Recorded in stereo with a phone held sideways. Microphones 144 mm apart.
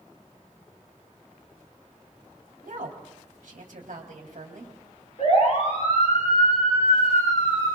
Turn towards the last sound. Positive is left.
turn(degrees=45)  # may be behind; listen again after turning